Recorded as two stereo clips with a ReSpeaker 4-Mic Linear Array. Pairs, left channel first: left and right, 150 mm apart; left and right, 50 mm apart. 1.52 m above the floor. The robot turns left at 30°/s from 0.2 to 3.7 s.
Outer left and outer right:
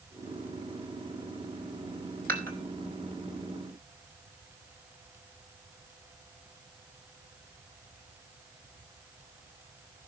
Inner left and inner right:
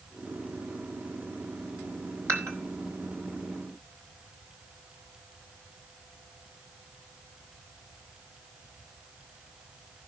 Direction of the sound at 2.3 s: 70° right (ahead or behind).